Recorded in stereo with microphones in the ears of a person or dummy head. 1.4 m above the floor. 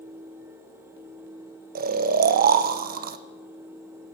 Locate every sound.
1.8 s snoring: 45° right (ahead or behind), 0.7 m